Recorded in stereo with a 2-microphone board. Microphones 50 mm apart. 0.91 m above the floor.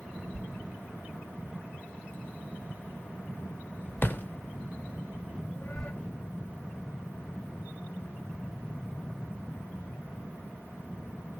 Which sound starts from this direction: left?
A thud, at 0.3 s.